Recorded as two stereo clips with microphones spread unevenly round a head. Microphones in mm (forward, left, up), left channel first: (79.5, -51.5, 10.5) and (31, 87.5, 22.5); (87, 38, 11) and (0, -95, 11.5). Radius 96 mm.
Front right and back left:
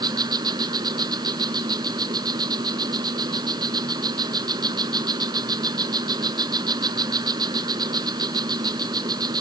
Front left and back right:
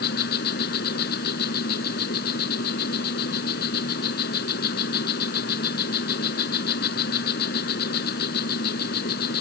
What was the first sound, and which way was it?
An insect, 50° left.